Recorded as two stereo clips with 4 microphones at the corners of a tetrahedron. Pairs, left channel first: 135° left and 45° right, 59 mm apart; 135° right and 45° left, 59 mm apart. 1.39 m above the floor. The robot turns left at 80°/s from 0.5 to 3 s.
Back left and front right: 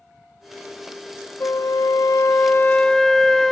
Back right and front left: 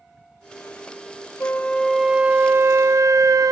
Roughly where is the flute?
Behind.